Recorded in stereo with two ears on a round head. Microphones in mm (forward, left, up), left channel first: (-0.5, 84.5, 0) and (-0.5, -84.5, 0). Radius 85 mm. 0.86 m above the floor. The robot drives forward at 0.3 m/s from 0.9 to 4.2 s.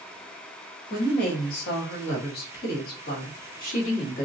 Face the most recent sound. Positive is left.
turn(degrees=45)  # may be behind; listen again after turning